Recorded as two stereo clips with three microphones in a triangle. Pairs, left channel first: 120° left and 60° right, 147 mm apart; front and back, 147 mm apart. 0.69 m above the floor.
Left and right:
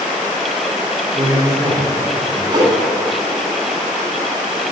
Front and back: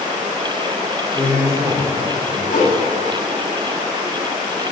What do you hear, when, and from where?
1.1 s a man speaking: 115° right, 1.7 m; by 2.4 s 125° right, 2.5 m
2.5 s a whoosh: 5° right, 1.0 m